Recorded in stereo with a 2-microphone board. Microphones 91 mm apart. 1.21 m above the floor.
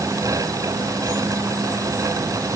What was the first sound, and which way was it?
Only background noise.